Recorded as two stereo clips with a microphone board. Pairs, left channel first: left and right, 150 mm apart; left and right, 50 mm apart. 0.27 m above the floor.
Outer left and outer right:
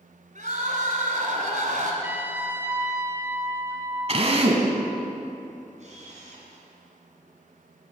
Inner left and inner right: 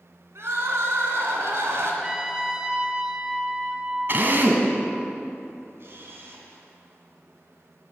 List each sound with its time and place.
0.3 s crying: 65° right (ahead or behind), 2 m
2.0 s a trumpet: 15° right (ahead or behind), 1.1 m
4.1 s a drill: 45° right (ahead or behind), 1.5 m
5.8 s a camera shutter: 55° right (ahead or behind), 3 m